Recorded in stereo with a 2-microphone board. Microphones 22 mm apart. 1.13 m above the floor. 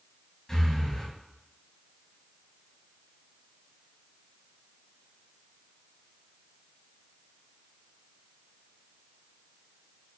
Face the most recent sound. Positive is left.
turn(degrees=20)  # may be behind; listen again after turning